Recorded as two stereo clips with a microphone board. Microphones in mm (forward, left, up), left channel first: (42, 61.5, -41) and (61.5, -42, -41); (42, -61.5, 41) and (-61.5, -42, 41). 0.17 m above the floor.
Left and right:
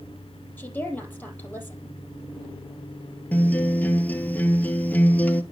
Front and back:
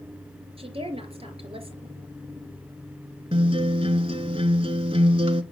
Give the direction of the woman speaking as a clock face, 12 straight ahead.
6 o'clock.